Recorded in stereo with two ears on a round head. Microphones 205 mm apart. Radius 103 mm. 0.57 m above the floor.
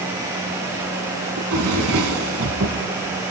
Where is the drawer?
75° right (ahead or behind), 3 m.